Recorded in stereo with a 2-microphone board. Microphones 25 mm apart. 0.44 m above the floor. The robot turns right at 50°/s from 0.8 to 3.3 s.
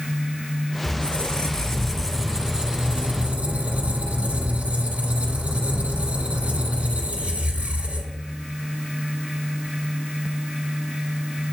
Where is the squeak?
130° left, 1.8 m; by 8.2 s 110° right, 1.8 m.